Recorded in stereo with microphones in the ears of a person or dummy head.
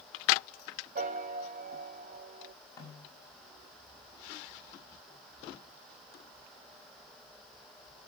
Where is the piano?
40° right (ahead or behind), 0.7 m.